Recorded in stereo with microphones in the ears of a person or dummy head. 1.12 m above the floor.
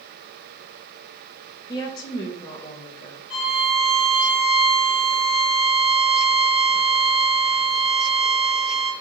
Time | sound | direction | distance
1.7 | a woman speaking | 25° left (ahead or behind) | 0.8 m
3.3 | a violin | 5° right (ahead or behind) | 1.1 m